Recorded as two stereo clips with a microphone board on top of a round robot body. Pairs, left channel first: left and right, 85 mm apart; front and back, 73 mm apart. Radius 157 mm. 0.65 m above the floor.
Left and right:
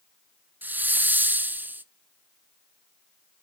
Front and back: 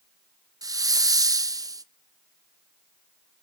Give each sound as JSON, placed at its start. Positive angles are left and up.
{"t": 0.6, "sound": "a hiss", "azimuth_deg": -155, "distance_m": 0.7}